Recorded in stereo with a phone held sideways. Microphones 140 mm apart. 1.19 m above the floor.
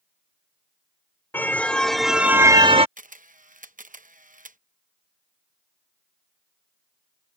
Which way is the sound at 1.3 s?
15° left (ahead or behind).